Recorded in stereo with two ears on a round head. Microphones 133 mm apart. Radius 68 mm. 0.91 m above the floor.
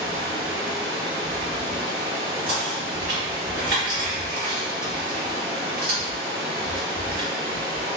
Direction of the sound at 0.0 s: 30° right (ahead or behind).